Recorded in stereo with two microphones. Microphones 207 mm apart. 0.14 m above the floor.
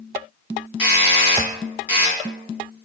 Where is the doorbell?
10° right (ahead or behind), 2.0 m.